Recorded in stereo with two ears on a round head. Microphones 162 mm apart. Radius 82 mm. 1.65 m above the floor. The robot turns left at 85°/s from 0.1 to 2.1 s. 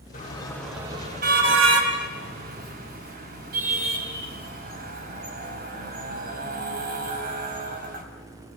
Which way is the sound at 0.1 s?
45° left (ahead or behind).